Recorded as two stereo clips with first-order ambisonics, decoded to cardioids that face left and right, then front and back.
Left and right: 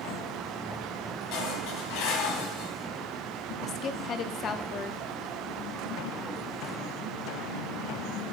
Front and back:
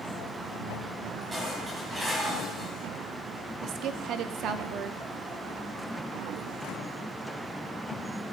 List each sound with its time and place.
1.3 s dishes clattering: 100° left, 4 m
3.6 s a woman speaking: 140° left, 0.9 m